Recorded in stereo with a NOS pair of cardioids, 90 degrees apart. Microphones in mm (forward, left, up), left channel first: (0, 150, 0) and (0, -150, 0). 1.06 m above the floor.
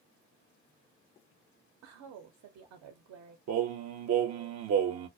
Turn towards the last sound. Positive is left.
turn(degrees=-60)